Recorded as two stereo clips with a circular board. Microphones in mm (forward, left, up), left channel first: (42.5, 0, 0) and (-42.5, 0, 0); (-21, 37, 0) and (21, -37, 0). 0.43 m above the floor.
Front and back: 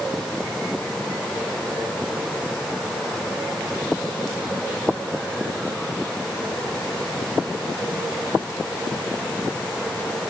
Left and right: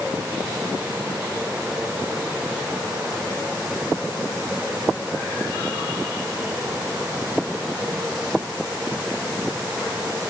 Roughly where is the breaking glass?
No breaking glass in this recording.